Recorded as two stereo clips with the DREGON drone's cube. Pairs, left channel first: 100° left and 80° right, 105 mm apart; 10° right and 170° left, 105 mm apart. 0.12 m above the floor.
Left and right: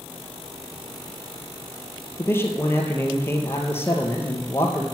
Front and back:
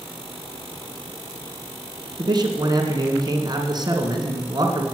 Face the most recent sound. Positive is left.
turn(degrees=160)